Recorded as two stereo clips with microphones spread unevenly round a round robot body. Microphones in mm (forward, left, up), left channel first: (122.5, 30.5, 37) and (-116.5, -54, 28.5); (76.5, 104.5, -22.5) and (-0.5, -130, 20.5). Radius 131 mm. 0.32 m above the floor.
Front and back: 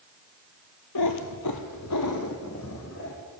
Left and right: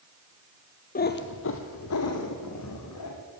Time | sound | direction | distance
0.9 | a cat meowing | 15° left | 1.1 m